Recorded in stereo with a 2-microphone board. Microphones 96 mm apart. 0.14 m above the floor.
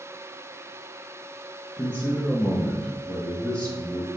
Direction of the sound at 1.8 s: 15° left (ahead or behind).